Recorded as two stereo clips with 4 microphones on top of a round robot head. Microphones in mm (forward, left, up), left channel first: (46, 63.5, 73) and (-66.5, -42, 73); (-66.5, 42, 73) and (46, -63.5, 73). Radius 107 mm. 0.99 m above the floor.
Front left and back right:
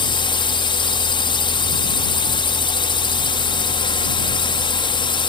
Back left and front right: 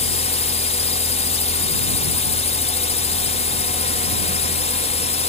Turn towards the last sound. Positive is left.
turn(degrees=95)